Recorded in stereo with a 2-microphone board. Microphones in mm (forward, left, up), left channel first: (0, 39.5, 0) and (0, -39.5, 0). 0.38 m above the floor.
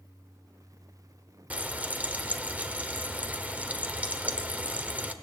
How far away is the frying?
About 1.2 m.